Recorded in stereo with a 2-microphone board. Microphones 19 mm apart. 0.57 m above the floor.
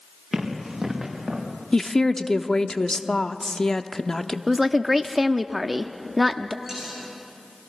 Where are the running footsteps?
30° right (ahead or behind), 5.5 m; by 1.4 s 25° right (ahead or behind), 6 m.